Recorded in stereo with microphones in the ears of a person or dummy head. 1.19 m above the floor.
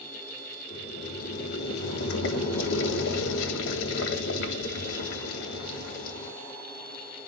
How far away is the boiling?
About 2.5 m.